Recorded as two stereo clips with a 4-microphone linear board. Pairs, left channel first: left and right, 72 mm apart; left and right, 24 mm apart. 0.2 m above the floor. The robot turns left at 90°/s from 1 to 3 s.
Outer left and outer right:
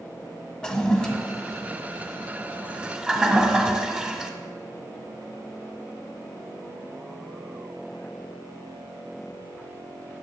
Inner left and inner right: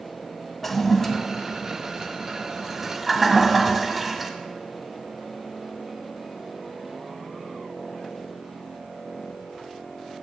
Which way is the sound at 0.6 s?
10° left (ahead or behind).